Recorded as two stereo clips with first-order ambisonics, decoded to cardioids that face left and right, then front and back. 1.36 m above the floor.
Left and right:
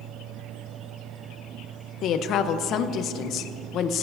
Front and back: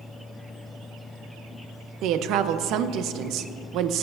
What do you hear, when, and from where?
2.0 s a woman speaking: 140° left, 0.7 m